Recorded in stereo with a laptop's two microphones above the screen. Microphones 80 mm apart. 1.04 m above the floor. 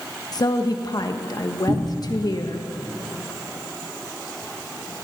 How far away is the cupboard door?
About 2.5 m.